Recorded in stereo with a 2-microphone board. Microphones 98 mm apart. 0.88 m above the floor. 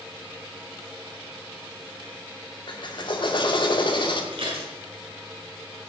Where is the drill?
55° left (ahead or behind), 2 m.